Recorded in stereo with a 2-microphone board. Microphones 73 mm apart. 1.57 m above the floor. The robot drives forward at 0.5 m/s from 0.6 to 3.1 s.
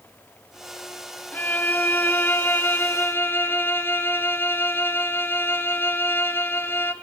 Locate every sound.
1.3 s a violin: 25° left (ahead or behind), 2 m; by 6.9 s 30° left (ahead or behind), 1.6 m